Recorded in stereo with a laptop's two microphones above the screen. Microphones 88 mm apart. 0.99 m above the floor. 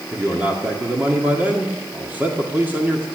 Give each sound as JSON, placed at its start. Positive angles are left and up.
{"t": 0.1, "sound": "a man speaking", "side_deg": -20, "distance_m": 2.0}